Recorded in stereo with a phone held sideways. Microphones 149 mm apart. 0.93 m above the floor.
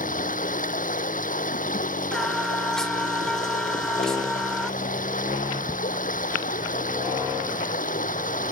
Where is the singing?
5° left (ahead or behind).